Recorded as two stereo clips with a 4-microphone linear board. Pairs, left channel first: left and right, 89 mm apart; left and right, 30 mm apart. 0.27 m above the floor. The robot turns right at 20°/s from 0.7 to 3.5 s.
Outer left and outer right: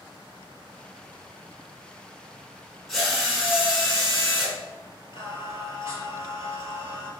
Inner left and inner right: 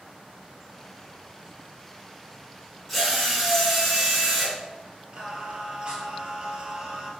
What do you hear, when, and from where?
2.9 s a drill: centre (ahead or behind), 1.4 m; by 4.5 s 5° right (ahead or behind), 1.4 m
5.1 s singing: 40° right (ahead or behind), 1.1 m